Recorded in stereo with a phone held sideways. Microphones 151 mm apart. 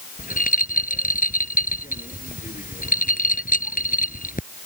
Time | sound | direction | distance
0.2 | a rattle | 65° left (ahead or behind) | ?